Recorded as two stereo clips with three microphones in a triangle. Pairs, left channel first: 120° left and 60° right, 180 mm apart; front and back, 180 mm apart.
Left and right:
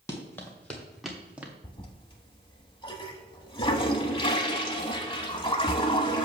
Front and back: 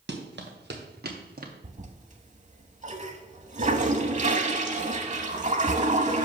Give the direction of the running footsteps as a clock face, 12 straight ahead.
6 o'clock.